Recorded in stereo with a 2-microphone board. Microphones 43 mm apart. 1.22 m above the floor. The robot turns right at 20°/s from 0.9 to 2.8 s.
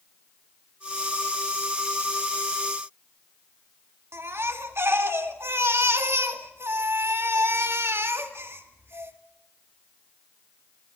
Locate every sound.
4.1 s a baby crying: 70° right (ahead or behind), 1.9 m